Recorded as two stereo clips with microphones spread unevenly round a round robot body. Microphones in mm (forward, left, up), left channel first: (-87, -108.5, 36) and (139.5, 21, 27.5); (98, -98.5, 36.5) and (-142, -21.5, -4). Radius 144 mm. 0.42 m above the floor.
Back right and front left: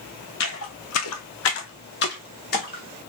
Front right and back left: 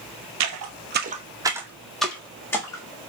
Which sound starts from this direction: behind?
Footsteps, at 0.4 s.